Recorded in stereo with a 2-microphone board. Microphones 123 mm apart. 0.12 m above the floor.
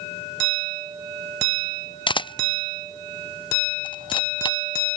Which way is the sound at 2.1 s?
40° left (ahead or behind).